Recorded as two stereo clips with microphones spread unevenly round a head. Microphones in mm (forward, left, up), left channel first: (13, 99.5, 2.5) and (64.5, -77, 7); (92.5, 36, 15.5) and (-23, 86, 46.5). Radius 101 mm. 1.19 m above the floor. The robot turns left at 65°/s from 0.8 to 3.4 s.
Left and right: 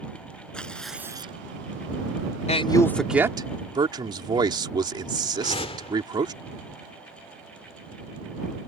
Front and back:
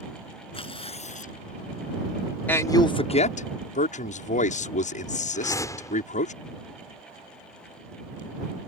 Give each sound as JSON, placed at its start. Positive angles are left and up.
{"t": 0.5, "sound": "tearing paper", "azimuth_deg": 20}
{"t": 2.5, "sound": "a man speaking", "azimuth_deg": 55}
{"t": 5.3, "sound": "a whoosh", "azimuth_deg": 50}